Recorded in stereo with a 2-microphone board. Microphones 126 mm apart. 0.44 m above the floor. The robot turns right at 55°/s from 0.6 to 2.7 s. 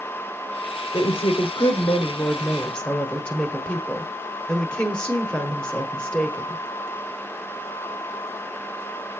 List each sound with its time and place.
0.9 s a woman speaking: 70° left, 1.1 m; by 6.6 s 170° left, 1.1 m